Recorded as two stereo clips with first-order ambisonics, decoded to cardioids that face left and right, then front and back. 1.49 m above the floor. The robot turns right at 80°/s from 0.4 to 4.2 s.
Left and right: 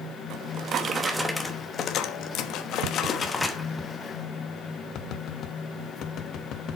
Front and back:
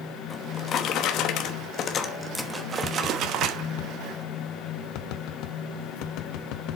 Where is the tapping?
75° right, 0.8 m; by 6.8 s 35° left, 0.8 m.